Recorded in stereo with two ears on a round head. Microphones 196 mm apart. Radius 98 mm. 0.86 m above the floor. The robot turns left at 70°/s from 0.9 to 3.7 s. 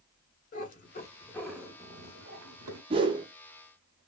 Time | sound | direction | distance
0.5 | a cat meowing | 40° left | 1.2 m
2.9 | a whoosh | 25° right (ahead or behind) | 0.6 m